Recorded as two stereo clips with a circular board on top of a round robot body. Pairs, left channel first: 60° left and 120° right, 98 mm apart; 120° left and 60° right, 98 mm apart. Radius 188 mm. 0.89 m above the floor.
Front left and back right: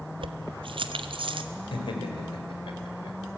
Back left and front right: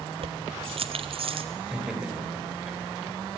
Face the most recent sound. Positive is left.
turn(degrees=25)